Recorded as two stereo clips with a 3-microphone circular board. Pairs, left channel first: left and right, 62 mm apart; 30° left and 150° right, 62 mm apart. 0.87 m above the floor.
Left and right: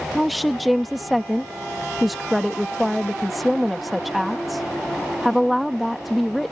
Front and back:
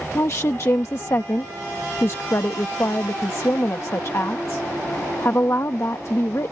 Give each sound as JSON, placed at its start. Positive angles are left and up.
{"t": 0.1, "sound": "a woman speaking", "azimuth_deg": 0}